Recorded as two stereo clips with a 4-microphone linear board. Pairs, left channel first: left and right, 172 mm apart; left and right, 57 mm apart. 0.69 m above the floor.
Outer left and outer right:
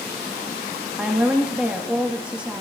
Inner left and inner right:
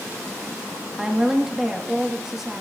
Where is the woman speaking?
5° right (ahead or behind), 0.9 m.